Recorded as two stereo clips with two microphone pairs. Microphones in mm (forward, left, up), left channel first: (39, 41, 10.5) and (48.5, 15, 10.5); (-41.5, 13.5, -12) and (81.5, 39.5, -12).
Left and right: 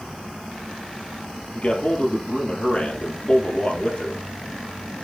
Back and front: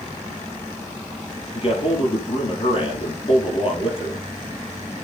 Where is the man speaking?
150° left, 3.5 m.